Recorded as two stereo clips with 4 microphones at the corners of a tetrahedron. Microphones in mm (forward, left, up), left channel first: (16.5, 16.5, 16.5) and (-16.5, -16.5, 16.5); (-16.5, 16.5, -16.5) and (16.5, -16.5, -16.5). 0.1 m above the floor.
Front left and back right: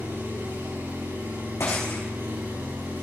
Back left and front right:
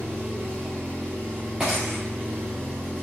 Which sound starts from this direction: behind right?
An engine running, at 0.0 s.